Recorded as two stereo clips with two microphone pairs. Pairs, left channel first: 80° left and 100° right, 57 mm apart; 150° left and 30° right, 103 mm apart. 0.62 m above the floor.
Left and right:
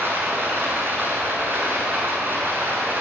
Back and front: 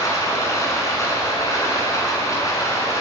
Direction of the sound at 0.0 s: 150° right.